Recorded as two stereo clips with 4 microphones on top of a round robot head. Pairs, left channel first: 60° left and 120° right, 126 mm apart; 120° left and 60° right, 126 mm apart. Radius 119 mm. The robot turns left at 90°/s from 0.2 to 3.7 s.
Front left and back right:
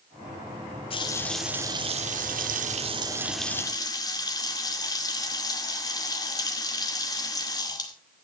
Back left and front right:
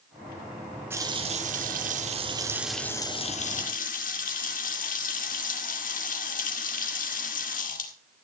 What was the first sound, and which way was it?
A running tap, 15° left.